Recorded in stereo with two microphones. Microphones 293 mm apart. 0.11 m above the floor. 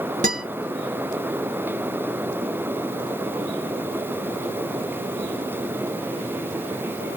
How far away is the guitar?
About 1.7 m.